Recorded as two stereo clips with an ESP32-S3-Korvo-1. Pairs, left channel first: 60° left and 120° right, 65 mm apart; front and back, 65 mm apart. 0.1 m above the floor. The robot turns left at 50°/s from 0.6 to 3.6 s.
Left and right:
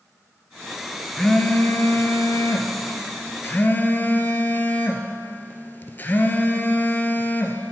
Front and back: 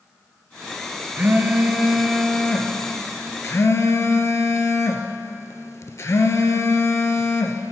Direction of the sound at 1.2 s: 135° left.